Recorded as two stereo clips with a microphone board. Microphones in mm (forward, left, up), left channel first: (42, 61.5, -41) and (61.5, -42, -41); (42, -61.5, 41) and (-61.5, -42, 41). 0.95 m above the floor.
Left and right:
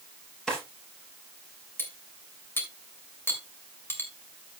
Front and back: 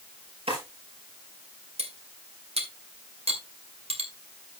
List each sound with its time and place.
0.5 s a drawer: 175° right, 5.5 m
1.8 s cutlery clinking: 170° left, 2.5 m